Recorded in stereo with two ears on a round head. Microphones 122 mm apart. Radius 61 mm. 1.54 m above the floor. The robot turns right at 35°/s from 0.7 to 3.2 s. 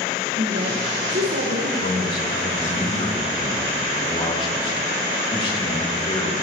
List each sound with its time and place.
0.4 s a woman speaking: 120° right, 1.3 m; by 1.7 s 85° right, 1.3 m
1.8 s a man speaking: 95° left, 2 m; by 6.3 s 140° left, 2 m